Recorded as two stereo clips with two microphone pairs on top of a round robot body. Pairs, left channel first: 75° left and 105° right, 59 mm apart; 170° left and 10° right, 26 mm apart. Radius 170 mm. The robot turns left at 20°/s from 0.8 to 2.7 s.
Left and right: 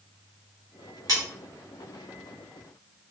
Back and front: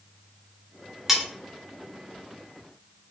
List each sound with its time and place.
1.1 s cutlery clinking: 90° right, 0.6 m; by 1.2 s 95° right, 0.6 m